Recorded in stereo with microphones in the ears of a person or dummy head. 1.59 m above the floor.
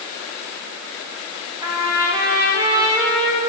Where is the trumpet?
20° right (ahead or behind), 2.5 m.